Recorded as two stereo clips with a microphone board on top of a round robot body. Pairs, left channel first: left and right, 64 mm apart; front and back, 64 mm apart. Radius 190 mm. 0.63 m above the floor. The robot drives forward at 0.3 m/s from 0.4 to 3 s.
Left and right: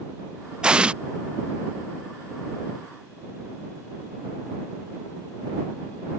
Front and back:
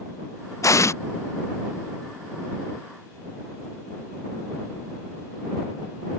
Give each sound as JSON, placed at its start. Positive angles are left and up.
{"t": 0.6, "sound": "an explosion", "azimuth_deg": -15}